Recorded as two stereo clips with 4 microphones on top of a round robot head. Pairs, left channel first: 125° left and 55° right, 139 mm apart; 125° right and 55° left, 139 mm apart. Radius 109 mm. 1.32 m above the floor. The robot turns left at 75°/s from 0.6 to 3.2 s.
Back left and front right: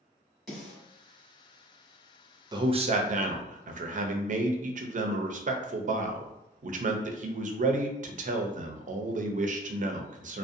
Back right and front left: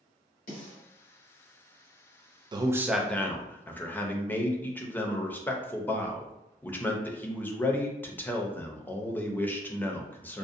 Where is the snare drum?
145° right, 1.1 m; by 0.8 s 160° right, 1.1 m.